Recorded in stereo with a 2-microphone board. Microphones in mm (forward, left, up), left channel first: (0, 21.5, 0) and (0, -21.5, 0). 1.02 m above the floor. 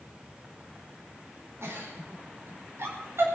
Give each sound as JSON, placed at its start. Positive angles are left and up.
{"t": 1.6, "sound": "a giggle", "side_deg": -75, "distance_m": 4.0}